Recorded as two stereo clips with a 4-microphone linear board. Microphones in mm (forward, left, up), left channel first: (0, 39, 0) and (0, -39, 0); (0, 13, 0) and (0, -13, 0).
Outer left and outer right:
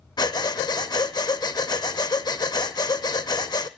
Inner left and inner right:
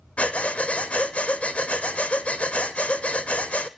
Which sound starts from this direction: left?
Breathing, at 0.2 s.